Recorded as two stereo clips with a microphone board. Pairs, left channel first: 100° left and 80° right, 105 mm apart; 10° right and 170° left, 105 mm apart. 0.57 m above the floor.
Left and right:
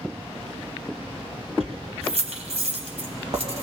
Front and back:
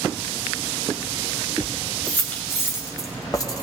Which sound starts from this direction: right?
Keys jangling, at 1.6 s.